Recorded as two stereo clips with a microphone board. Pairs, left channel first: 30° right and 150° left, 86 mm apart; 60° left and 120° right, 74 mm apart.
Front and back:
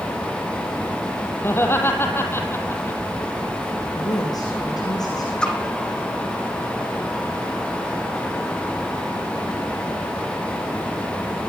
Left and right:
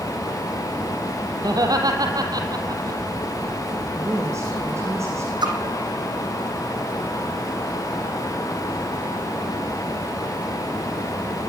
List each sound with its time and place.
1.4 s laughter: 95° right, 5 m
4.0 s a woman speaking: 75° right, 6 m
5.4 s a splash: 110° right, 4 m